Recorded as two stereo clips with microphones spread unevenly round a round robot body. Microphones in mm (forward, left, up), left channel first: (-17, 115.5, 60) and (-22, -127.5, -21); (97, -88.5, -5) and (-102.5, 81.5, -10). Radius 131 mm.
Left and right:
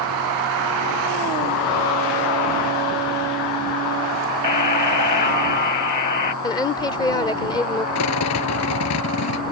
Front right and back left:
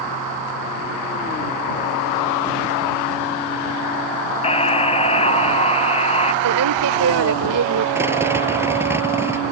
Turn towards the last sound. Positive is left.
turn(degrees=60)